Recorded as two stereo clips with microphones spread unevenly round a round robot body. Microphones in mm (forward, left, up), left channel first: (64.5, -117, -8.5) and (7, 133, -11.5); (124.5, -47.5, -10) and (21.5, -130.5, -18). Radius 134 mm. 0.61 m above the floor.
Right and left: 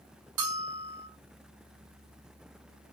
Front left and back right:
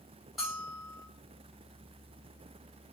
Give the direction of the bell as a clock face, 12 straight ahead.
8 o'clock.